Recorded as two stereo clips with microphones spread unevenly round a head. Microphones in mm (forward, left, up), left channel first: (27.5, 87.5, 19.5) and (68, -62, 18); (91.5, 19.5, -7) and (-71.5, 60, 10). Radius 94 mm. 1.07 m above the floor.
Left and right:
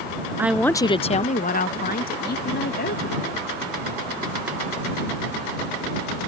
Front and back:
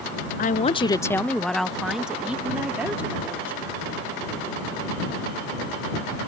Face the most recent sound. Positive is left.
turn(degrees=90)